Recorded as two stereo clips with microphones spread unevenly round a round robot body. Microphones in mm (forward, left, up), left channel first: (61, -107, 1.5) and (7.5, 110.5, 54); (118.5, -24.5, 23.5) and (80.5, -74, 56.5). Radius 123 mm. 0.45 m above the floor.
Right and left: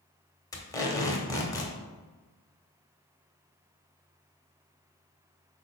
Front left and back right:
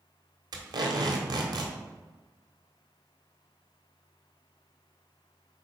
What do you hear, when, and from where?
0.5 s tape being pulled: 125° right, 1.3 m